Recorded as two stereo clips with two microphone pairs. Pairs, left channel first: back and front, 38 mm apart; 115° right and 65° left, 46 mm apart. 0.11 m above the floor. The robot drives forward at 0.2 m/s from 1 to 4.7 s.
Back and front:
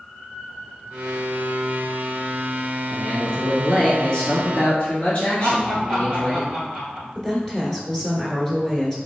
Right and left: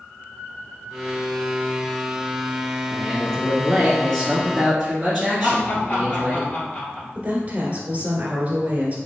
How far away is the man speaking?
About 1.3 m.